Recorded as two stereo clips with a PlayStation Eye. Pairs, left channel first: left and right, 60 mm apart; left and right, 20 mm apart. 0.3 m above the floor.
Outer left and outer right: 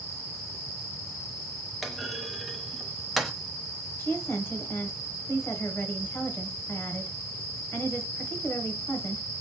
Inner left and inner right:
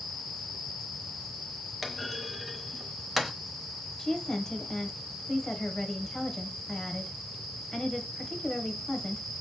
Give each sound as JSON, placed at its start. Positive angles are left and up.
{"t": 1.8, "sound": "a clunk", "side_deg": 0, "distance_m": 0.8}
{"t": 4.0, "sound": "a woman speaking", "side_deg": 40, "distance_m": 1.1}